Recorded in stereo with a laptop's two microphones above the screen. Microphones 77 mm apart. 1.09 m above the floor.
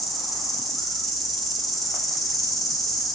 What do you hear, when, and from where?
0.0 s an insect: centre (ahead or behind), 2.5 m